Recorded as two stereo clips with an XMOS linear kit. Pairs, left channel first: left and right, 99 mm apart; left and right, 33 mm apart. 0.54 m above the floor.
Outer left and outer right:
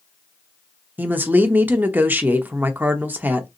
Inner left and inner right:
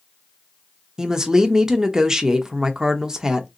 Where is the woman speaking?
20° right (ahead or behind), 0.9 m.